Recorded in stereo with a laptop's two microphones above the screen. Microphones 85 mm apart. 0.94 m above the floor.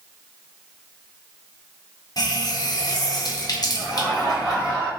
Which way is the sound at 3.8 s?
10° right (ahead or behind).